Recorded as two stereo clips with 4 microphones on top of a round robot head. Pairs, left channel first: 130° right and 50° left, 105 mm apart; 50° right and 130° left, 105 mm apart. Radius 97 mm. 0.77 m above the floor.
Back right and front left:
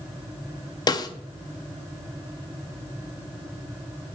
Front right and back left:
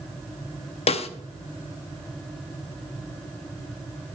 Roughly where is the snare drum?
Right.